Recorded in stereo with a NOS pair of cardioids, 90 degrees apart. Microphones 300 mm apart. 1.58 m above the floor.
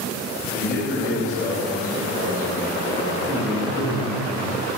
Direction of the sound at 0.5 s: 30° left.